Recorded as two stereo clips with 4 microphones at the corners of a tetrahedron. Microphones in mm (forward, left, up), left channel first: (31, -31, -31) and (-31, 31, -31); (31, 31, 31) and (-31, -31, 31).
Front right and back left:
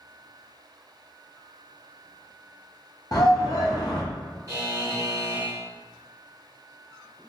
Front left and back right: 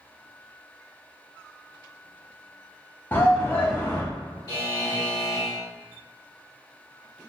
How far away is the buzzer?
About 1.0 m.